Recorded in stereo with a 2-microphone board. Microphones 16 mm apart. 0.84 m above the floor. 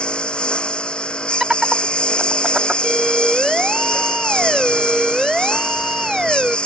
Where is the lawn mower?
90° left.